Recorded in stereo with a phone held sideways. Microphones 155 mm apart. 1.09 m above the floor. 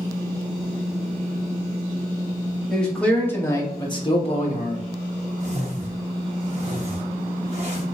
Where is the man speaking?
5° left (ahead or behind), 1.3 m; by 4.9 s 55° left (ahead or behind), 0.9 m.